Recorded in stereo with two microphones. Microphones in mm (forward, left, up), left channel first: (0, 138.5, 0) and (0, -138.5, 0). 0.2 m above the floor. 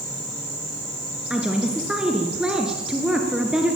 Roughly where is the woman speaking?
Centre.